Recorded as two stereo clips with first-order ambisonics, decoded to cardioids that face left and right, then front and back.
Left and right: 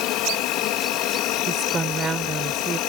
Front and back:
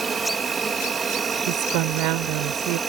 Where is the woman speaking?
165° right.